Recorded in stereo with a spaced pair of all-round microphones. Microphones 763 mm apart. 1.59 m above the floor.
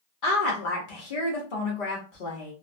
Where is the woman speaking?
80° left, 1.0 m.